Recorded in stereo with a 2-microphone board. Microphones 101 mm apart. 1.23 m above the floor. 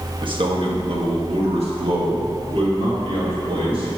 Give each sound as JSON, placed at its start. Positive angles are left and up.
{"t": 0.2, "sound": "a man speaking", "side_deg": -55, "distance_m": 1.4}